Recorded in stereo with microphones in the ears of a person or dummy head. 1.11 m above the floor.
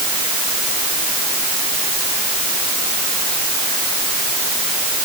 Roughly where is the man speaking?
I don't hear a man speaking.